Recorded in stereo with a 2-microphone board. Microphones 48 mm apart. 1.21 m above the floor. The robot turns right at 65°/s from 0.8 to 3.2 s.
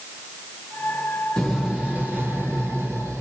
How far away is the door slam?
About 1.1 m.